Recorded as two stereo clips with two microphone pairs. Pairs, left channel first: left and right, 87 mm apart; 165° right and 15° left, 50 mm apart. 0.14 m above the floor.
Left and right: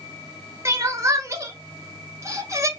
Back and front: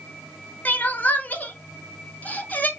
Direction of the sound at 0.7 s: 130° right.